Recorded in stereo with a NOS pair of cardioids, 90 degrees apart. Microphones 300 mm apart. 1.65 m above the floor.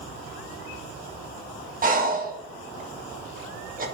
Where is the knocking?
I don't hear knocking.